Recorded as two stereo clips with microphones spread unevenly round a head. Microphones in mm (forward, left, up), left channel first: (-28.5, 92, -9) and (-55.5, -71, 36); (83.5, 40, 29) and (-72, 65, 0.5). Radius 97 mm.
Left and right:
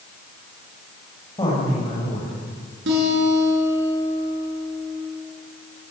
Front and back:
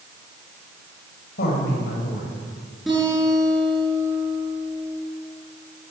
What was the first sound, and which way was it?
A woman speaking, 10° left.